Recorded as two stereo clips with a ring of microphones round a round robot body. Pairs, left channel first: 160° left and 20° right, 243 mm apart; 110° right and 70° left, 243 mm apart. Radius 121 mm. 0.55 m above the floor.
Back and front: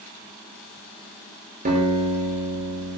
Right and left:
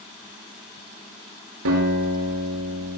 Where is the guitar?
35° left, 7 m.